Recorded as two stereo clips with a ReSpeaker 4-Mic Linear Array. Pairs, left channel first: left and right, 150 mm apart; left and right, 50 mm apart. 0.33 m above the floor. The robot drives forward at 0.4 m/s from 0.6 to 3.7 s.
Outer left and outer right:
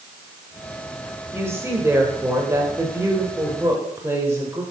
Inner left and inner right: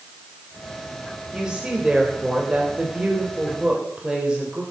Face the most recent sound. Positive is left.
turn(degrees=-20)  # may be behind; listen again after turning